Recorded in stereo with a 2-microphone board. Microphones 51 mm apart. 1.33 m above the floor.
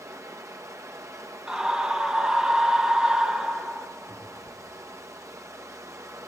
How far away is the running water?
About 1.5 m.